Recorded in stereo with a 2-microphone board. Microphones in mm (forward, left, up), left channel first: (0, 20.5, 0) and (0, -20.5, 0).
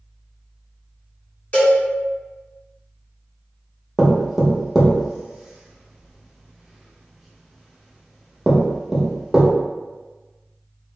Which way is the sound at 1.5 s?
35° left (ahead or behind).